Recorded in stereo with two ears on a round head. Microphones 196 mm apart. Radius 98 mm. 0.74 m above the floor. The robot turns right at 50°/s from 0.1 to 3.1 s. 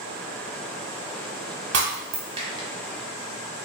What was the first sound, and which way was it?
Breaking glass, 55° right (ahead or behind).